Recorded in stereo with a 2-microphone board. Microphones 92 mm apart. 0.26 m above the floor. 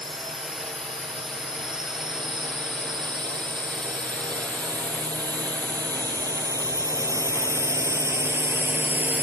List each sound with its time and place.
0.0 s a drone: 65° right (ahead or behind); by 9.2 s 20° right (ahead or behind)